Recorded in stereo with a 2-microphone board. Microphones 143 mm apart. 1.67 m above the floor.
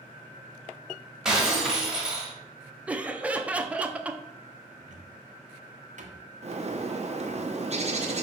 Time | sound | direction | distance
1.2 | breaking glass | 5° right (ahead or behind) | 1.6 m
2.9 | laughter | 10° right (ahead or behind) | 0.6 m
4.8 | a cupboard door | 60° right (ahead or behind) | 0.9 m
6.4 | a bird | 50° right (ahead or behind) | 0.9 m